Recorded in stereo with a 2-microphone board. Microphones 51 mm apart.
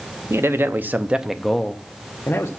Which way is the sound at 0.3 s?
55° right (ahead or behind).